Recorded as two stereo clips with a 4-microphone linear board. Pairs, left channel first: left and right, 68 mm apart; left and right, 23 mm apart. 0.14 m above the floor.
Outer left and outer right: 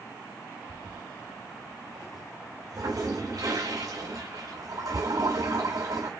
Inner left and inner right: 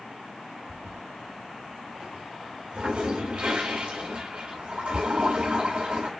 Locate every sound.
0.7 s a toilet flushing: 55° right (ahead or behind), 4 m